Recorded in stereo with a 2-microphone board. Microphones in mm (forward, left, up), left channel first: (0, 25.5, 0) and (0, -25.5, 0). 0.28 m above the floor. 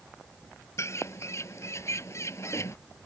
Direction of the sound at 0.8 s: 60° left (ahead or behind).